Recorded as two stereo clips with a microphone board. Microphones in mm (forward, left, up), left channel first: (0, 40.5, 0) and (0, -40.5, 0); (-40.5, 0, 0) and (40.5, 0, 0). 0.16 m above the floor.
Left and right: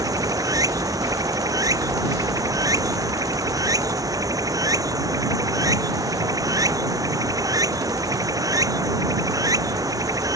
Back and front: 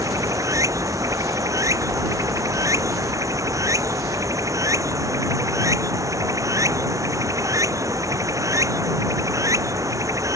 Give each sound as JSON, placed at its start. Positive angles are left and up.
{"t": 0.0, "sound": "running water", "azimuth_deg": -45}